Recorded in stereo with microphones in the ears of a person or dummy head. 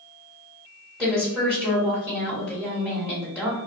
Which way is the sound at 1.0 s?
Centre (ahead or behind).